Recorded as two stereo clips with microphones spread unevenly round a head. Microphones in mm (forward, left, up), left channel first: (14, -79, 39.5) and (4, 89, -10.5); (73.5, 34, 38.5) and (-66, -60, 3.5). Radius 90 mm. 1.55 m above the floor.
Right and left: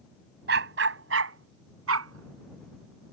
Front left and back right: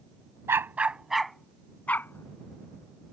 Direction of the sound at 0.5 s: 130° left.